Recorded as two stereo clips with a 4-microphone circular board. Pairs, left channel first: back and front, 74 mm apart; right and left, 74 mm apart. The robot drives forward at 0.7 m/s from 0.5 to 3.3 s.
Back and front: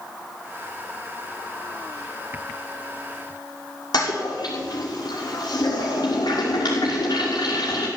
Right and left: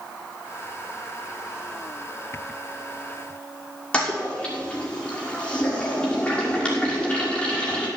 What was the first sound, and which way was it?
A toilet flushing, 165° right.